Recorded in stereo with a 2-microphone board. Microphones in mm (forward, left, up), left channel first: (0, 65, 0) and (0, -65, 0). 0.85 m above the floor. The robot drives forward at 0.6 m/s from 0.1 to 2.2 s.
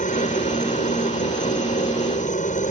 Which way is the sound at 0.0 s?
65° left (ahead or behind).